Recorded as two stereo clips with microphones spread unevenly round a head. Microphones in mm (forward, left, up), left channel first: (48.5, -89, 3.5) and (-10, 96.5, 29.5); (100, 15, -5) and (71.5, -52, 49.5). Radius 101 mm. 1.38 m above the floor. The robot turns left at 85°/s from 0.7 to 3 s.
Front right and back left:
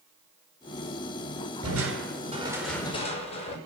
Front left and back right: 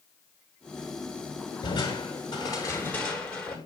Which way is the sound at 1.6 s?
105° left.